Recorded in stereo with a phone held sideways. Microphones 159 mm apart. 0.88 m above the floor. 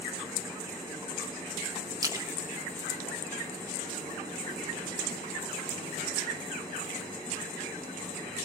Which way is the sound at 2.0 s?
25° right (ahead or behind).